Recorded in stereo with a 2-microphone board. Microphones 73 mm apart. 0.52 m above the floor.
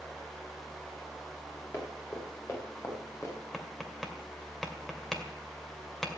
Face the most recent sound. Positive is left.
turn(degrees=5)  # may be behind; listen again after turning